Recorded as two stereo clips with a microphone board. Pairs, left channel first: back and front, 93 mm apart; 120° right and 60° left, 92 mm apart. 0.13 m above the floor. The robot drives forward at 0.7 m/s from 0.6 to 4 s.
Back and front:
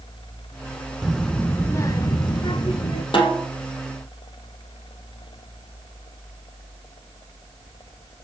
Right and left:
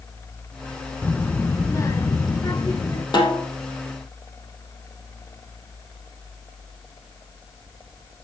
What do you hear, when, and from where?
1.0 s a child speaking: 75° right, 0.7 m; by 3.0 s 170° right, 1.5 m
3.1 s a snare drum: 155° right, 4.5 m; by 3.5 s 160° right, 4.5 m